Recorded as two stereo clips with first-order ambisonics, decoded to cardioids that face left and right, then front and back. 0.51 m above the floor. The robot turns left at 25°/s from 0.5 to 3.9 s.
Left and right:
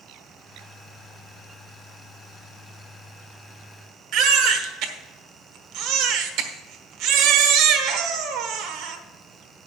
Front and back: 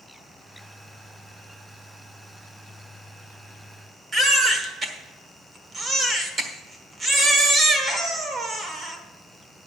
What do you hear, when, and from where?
4.1 s a baby crying: 110° right, 1.2 m